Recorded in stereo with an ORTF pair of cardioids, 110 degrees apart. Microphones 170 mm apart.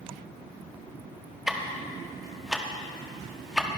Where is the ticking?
Straight ahead, 1.3 m.